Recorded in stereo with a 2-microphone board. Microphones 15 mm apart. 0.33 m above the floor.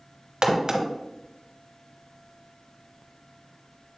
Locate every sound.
0.4 s a crack: 55° right (ahead or behind), 1.1 m